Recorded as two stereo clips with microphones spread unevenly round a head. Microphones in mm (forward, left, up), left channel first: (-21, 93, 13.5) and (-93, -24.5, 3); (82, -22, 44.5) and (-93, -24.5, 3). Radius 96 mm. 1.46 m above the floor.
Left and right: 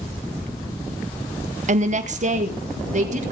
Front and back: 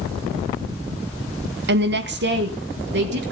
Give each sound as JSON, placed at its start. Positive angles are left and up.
{"t": 1.7, "sound": "a woman speaking", "azimuth_deg": -155, "distance_m": 0.9}